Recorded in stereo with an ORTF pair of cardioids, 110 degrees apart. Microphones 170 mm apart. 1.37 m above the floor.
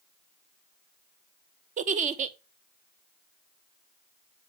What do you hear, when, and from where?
1.8 s a giggle: 50° right, 0.9 m